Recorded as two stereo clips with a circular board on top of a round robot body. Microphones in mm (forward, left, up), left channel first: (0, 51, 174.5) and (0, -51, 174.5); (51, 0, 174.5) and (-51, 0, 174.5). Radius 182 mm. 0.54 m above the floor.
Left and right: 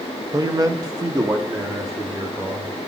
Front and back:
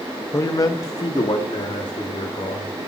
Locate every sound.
0.3 s a man speaking: 50° right, 0.8 m; by 2.8 s 40° right, 1.8 m